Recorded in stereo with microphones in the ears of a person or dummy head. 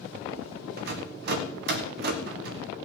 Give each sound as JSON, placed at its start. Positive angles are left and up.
{"t": 0.8, "sound": "a rattle", "side_deg": -60, "distance_m": 1.3}